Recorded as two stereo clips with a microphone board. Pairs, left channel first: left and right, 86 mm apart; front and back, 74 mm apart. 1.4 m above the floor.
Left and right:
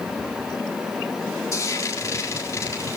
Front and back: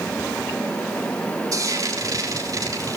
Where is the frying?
140° left, 4 m.